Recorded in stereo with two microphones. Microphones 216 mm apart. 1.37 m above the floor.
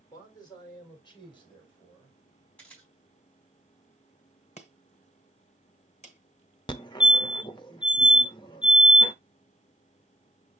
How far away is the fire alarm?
About 0.8 m.